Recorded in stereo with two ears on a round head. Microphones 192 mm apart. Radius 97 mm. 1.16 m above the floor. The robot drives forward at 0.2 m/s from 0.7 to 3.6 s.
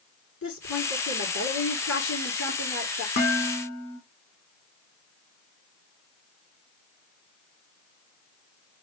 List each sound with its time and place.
0.4 s a woman speaking: 65° left (ahead or behind), 2.5 m; by 3.1 s 60° left (ahead or behind), 3 m
3.2 s dishes clattering: 55° left (ahead or behind), 2.0 m